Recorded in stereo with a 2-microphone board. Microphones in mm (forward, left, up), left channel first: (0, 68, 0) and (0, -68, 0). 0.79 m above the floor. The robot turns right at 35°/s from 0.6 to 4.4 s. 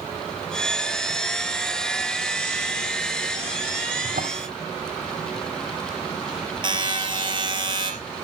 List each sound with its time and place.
4.0 s a drawer: 85° right, 2 m; by 4.5 s 80° right, 2 m
6.6 s a buzzer: 35° right (ahead or behind), 3.5 m